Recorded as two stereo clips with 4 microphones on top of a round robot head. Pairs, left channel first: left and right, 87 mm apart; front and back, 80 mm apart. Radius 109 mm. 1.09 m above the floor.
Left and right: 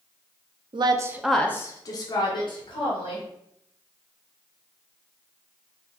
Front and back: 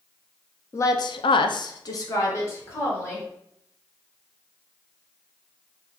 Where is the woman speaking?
60° right, 0.6 m; by 3.2 s 55° left, 1.9 m.